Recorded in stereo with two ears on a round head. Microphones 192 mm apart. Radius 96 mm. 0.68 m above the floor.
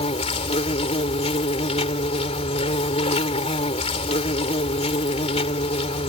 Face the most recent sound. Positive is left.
turn(degrees=30)  # may be behind; listen again after turning